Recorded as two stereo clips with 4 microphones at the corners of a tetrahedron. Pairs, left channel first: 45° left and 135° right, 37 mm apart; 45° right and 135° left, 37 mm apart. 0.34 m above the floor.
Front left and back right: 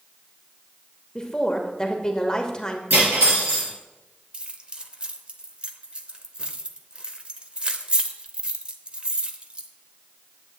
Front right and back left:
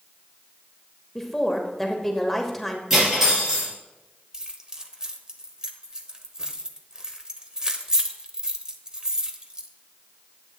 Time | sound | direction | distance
1.1 | a woman speaking | 35° left | 1.1 m
2.9 | cutlery clinking | 145° right | 4 m
4.3 | keys jangling | 170° right | 0.7 m